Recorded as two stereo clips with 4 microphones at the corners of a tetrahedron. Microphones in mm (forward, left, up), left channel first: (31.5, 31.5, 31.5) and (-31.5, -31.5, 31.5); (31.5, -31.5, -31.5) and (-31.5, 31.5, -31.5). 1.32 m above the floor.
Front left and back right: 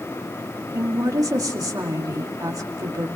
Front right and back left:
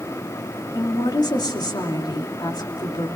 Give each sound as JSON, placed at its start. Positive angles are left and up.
{"t": 0.7, "sound": "a woman speaking", "azimuth_deg": -85, "distance_m": 2.5}